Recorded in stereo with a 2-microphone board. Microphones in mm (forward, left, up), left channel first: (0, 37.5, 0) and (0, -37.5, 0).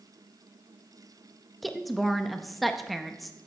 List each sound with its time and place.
1.6 s a woman speaking: centre (ahead or behind), 0.6 m